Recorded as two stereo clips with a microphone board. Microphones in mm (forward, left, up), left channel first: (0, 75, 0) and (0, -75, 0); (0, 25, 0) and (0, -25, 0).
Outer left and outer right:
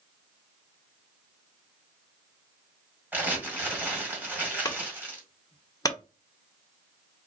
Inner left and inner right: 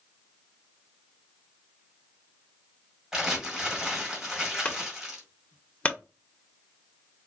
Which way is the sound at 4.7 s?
25° left (ahead or behind).